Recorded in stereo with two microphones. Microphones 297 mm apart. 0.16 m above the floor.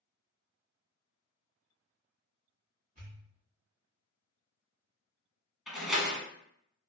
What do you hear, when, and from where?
3.0 s a pop: 30° right (ahead or behind), 1.8 m
5.7 s a door slam: centre (ahead or behind), 0.7 m